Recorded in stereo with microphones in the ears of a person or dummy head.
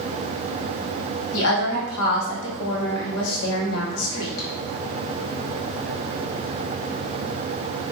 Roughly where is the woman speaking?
Left.